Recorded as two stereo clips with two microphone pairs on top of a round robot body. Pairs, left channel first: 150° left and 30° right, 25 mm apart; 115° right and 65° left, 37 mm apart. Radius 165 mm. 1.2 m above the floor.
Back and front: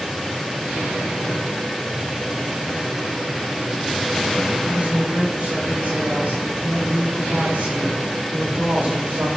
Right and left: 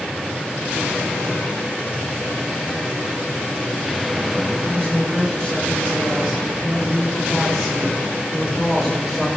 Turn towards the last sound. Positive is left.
turn(degrees=-35)